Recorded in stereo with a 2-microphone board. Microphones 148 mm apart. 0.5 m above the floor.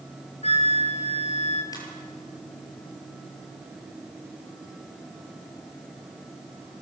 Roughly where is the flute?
Left.